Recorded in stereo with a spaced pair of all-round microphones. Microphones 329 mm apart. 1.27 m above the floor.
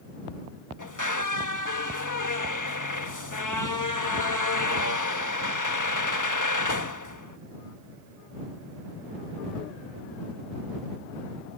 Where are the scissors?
No scissors in this recording.